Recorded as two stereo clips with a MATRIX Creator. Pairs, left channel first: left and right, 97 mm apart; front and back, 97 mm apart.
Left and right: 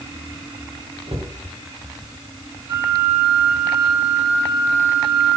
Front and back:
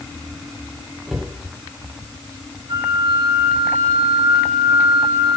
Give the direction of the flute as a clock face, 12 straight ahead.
5 o'clock.